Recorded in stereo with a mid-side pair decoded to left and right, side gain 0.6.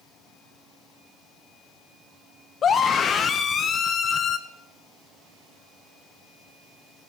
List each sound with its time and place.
2.6 s a scream: 40° left, 0.8 m